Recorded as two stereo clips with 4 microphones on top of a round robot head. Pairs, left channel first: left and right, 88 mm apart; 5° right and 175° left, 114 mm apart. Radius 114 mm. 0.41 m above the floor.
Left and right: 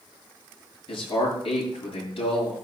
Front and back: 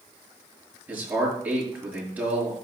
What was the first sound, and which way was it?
A man speaking, 100° left.